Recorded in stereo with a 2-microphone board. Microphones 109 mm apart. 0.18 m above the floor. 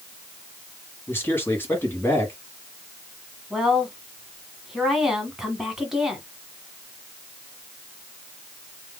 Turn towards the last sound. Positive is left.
turn(degrees=-5)  # may be behind; listen again after turning